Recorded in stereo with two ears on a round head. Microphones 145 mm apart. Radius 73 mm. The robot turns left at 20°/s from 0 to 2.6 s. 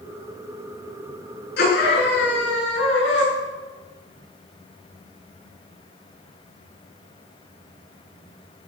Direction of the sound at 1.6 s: 70° left (ahead or behind).